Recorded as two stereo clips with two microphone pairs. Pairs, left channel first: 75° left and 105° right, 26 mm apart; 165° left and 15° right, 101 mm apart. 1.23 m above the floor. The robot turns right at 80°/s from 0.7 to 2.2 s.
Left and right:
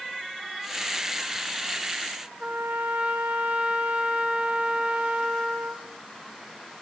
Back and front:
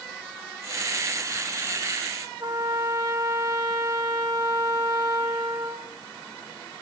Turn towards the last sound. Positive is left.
turn(degrees=-65)